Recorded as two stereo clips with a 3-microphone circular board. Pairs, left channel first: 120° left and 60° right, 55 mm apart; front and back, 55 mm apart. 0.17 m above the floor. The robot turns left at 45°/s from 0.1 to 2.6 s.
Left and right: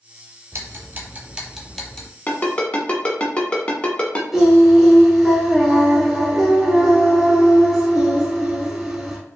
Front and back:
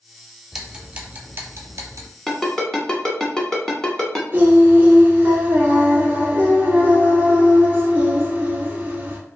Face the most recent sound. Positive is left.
turn(degrees=-135)